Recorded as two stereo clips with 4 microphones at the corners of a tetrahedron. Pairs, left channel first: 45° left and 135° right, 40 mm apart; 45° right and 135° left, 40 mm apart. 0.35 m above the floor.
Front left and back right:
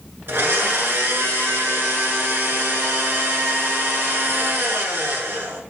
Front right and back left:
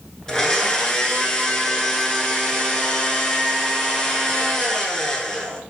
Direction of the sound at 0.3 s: 120° right.